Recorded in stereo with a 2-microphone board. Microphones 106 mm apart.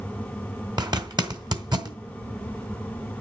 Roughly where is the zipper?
Right.